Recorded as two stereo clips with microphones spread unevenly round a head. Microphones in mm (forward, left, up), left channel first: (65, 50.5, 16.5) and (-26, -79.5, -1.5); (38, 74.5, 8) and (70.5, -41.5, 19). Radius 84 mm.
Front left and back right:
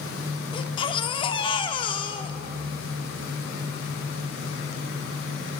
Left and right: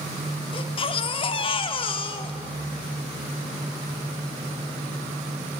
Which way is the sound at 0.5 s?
85° left.